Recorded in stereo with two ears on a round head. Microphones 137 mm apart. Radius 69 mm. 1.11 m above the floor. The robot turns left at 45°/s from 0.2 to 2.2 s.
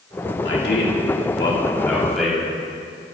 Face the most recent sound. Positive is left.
turn(degrees=-5)